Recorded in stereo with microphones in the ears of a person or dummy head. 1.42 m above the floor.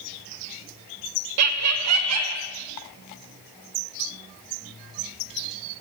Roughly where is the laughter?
Right.